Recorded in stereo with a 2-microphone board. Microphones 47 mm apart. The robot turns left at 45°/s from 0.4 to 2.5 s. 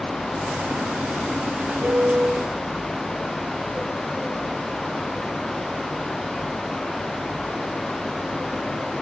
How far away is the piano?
About 2 m.